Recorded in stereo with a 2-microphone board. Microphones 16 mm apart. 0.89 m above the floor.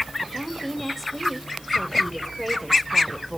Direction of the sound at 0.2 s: Centre (ahead or behind).